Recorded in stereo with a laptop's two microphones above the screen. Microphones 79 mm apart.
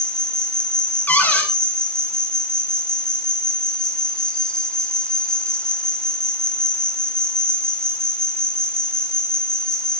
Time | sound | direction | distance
0.0 | an insect | 10° left (ahead or behind) | 1.2 m
1.1 | a cupboard door | 20° left (ahead or behind) | 1.8 m